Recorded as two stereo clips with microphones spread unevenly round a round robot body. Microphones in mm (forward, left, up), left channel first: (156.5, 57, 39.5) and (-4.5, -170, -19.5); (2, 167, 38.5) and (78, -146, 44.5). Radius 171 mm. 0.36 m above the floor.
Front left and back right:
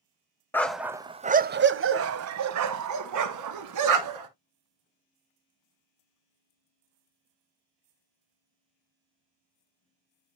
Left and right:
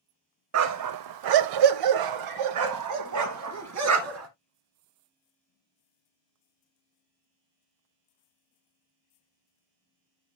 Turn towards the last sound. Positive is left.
turn(degrees=-125)